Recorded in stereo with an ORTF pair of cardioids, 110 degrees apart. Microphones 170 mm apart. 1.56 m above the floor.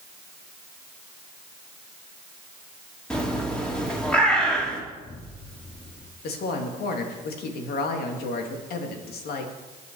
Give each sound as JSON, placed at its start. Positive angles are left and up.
{"t": 3.1, "sound": "a bird", "azimuth_deg": 5, "distance_m": 3.0}
{"t": 4.9, "sound": "an explosion", "azimuth_deg": 20, "distance_m": 2.0}
{"t": 6.2, "sound": "a woman speaking", "azimuth_deg": 70, "distance_m": 2.5}